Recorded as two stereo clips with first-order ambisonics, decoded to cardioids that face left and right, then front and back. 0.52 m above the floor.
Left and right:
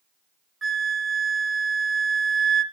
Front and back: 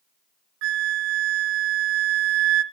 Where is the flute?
165° right, 1.2 m.